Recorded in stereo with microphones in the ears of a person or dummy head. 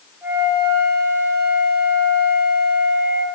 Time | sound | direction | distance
0.2 | a flute | 5° right (ahead or behind) | 6 m